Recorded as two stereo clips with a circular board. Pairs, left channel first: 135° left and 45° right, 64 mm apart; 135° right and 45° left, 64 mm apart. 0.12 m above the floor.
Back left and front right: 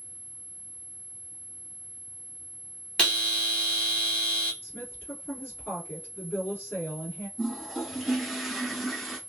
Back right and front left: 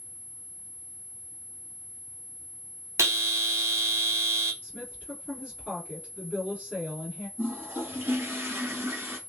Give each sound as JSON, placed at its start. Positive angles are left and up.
{"t": 3.0, "sound": "a bell", "azimuth_deg": 65, "distance_m": 0.8}
{"t": 4.6, "sound": "a woman speaking", "azimuth_deg": 105, "distance_m": 2.0}
{"t": 7.4, "sound": "a toilet flushing", "azimuth_deg": 50, "distance_m": 1.3}